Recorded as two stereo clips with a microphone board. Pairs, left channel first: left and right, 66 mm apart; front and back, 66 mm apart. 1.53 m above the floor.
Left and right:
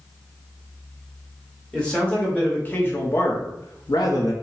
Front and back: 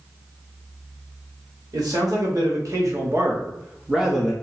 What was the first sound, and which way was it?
A man speaking, 165° left.